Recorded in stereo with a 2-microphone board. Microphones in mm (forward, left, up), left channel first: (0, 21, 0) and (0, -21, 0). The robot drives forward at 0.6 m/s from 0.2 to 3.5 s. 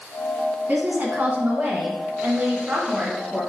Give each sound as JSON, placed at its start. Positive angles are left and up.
{"t": 0.7, "sound": "a woman speaking", "side_deg": -45, "distance_m": 1.6}